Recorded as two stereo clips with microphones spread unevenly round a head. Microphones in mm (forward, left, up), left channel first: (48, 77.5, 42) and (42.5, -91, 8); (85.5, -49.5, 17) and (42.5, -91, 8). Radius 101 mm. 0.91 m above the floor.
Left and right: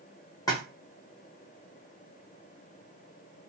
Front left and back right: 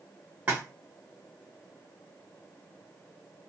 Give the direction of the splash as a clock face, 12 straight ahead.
7 o'clock.